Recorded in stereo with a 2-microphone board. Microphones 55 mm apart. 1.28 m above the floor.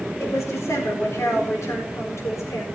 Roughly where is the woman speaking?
Left.